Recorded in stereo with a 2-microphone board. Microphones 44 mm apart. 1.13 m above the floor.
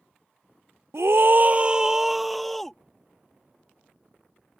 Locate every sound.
0.9 s a scream: 70° right (ahead or behind); by 2.8 s 5° left (ahead or behind)